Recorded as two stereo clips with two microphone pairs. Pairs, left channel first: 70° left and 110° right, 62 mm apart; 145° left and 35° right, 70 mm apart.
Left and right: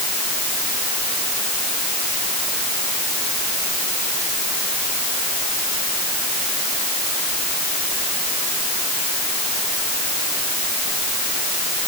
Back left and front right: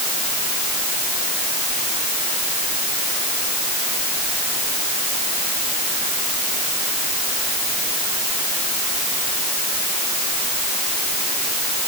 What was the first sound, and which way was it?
Only background noise.